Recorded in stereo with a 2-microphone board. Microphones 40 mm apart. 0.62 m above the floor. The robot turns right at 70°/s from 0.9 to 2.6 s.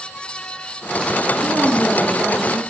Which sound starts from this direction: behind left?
A woman speaking, at 1.4 s.